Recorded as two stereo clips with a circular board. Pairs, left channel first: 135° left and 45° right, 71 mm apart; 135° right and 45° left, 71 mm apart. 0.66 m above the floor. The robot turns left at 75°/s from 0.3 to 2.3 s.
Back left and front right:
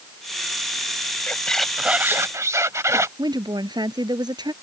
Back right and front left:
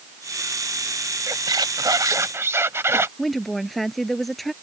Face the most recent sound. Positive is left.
turn(degrees=-45)